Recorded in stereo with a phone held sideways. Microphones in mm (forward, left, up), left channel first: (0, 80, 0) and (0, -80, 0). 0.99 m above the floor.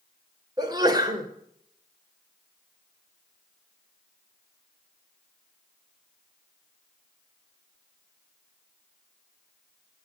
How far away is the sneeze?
About 4 m.